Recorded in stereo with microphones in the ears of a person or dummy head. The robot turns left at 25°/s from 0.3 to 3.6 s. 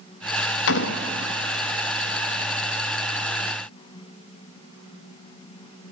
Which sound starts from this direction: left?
A door slam, at 0.7 s.